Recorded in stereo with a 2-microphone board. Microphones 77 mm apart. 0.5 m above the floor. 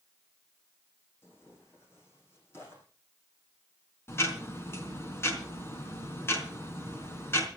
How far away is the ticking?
About 4 m.